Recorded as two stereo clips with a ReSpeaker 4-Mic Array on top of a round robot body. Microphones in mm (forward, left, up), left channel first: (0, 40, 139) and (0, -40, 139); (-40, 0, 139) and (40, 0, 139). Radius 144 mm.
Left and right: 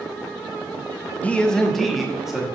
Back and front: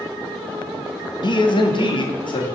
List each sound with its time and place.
1.2 s a man speaking: 165° left, 1.0 m; by 2.5 s 175° right, 1.8 m